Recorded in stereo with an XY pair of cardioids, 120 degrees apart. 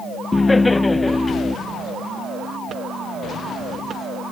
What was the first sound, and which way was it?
Laughter, 15° left.